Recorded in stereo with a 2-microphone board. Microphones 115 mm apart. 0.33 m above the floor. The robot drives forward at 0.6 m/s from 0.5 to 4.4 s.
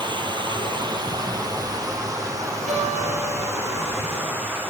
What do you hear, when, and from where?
0.0 s running water: 40° right (ahead or behind), 2 m; by 4.7 s 20° right (ahead or behind), 4 m
2.7 s a guitar: 80° right, 9.5 m